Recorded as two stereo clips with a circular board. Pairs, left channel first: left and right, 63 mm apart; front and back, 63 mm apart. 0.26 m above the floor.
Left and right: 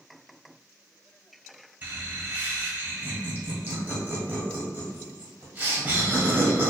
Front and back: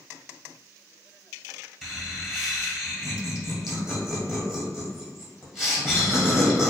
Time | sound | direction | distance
1.8 | laughter | 100° right | 1.5 m